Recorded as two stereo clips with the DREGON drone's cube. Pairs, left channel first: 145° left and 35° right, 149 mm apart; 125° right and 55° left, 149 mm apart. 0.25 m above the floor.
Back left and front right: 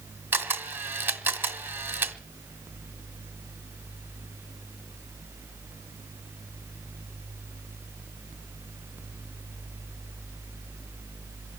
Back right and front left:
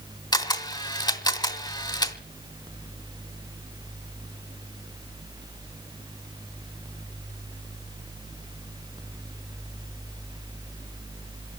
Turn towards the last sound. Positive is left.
turn(degrees=-95)